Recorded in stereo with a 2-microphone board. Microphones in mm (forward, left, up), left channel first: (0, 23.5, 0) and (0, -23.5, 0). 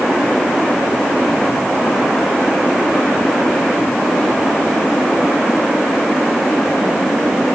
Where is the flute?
No flute in this recording.